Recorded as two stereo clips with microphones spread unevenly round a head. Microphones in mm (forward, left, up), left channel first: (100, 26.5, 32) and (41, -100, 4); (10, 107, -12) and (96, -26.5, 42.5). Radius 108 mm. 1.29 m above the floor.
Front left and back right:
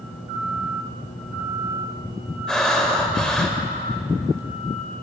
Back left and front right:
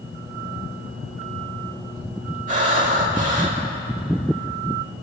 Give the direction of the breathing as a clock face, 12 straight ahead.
1 o'clock.